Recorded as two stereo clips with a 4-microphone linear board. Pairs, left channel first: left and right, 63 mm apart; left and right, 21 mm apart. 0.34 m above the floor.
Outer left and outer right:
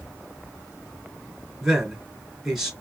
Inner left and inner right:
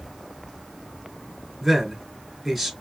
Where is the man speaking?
10° right (ahead or behind), 3 m.